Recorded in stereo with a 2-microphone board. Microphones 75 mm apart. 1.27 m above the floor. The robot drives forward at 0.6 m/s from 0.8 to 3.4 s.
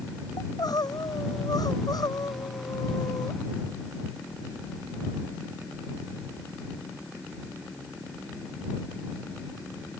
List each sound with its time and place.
0.4 s crying: 65° left (ahead or behind); by 3.4 s 60° left (ahead or behind)